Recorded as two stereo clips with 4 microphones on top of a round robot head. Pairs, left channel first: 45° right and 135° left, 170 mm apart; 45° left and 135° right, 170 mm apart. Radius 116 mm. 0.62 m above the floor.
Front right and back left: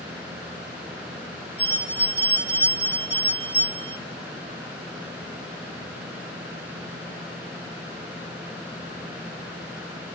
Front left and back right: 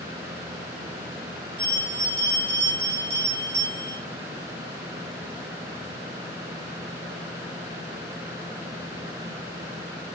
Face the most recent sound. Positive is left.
turn(degrees=-145)